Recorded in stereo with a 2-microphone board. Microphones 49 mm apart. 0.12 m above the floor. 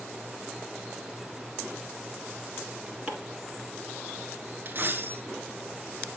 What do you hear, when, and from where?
3.1 s chopping: 25° right (ahead or behind), 1.9 m
4.7 s a dropped coin: 45° right (ahead or behind), 0.8 m